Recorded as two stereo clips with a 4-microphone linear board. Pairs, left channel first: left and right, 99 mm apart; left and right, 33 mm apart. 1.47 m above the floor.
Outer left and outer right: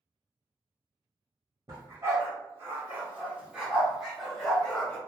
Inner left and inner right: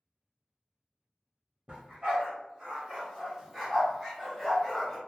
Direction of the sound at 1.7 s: 35° right (ahead or behind).